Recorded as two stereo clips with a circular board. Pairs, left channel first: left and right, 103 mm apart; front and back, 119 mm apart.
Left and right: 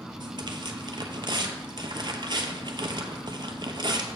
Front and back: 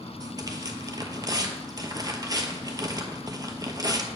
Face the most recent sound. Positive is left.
turn(degrees=-125)